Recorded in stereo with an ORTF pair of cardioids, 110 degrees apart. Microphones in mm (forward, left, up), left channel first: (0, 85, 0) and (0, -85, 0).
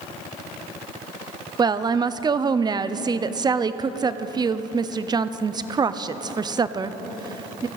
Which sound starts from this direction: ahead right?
A woman speaking, at 1.6 s.